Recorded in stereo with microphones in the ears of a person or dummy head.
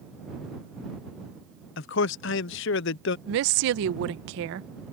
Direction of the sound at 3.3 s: 80° right.